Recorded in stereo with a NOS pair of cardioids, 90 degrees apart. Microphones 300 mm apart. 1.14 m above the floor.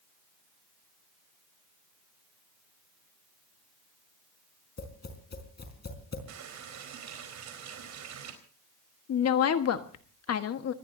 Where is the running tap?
70° right, 4 m.